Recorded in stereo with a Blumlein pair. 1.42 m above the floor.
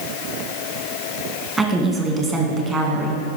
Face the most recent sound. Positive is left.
turn(degrees=-5)